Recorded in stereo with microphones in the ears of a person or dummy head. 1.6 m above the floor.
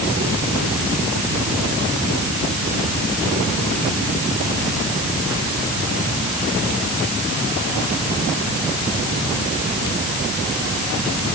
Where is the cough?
No cough in this recording.